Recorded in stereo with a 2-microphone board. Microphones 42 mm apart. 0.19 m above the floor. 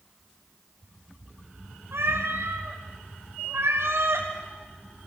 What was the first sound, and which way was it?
A cat meowing, 75° right (ahead or behind).